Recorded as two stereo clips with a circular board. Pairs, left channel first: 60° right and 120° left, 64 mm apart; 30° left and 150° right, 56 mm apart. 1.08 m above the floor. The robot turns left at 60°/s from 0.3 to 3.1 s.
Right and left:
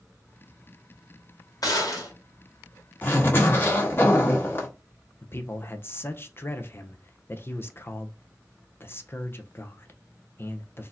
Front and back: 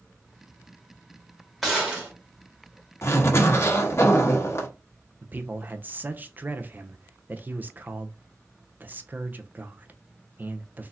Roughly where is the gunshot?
Ahead right.